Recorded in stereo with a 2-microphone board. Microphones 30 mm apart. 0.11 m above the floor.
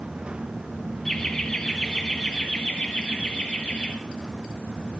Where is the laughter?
15° left (ahead or behind), 2.5 m; by 3.9 s 40° left (ahead or behind), 2.5 m.